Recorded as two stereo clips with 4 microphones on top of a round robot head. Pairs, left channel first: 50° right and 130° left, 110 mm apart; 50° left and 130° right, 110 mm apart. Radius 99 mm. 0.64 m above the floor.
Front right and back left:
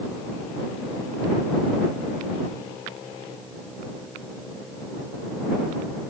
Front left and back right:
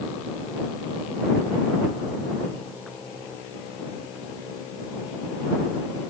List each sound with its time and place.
Only background noise.